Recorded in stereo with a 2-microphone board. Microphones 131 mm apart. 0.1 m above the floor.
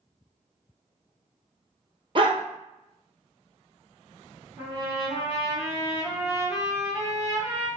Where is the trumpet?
15° right (ahead or behind), 2.0 m.